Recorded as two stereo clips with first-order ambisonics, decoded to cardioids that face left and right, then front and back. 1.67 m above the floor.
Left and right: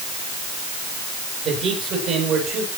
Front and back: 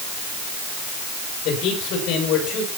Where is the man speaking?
40° right, 8 m.